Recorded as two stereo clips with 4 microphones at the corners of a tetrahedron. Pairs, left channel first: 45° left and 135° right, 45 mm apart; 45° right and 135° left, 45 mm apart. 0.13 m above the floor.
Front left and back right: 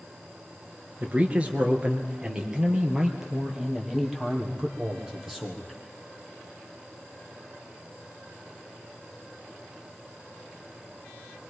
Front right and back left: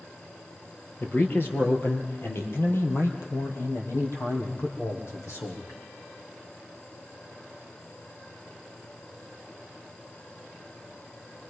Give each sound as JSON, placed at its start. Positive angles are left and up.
{"t": 1.0, "sound": "a man speaking", "azimuth_deg": -80, "distance_m": 2.5}